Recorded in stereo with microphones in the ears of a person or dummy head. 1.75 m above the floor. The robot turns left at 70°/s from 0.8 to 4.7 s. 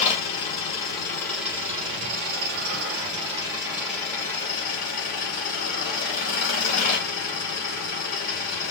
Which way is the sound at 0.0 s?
40° left.